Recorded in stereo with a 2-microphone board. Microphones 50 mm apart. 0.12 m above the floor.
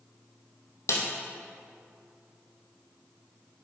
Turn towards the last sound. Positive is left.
turn(degrees=65)  # may be behind; listen again after turning